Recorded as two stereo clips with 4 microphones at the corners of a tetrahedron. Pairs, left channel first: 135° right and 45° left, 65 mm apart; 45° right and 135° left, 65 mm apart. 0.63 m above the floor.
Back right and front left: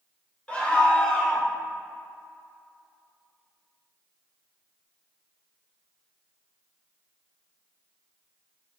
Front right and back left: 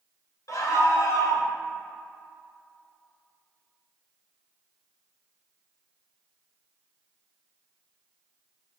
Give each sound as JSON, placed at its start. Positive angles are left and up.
{"t": 0.5, "sound": "a scream", "azimuth_deg": -65, "distance_m": 3.0}